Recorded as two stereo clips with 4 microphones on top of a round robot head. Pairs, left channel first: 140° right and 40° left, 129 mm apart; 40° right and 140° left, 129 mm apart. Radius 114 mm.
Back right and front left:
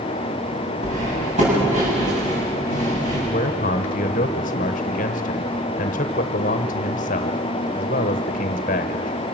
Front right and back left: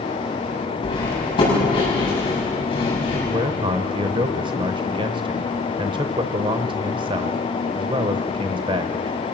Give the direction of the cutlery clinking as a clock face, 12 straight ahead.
12 o'clock.